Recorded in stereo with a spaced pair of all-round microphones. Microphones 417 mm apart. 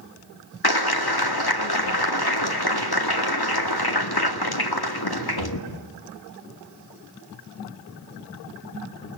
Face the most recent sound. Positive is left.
turn(degrees=60)  # may be behind; listen again after turning